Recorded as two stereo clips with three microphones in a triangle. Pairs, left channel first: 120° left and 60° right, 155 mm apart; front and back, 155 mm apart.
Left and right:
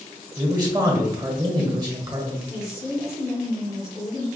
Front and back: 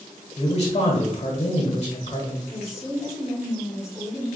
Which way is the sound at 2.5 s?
105° left.